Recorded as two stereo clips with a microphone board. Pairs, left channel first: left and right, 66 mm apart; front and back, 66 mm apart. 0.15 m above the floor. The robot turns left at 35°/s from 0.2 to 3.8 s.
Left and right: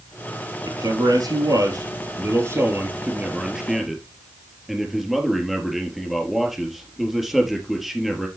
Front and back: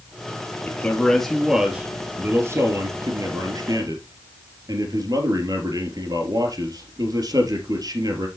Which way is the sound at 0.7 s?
65° right.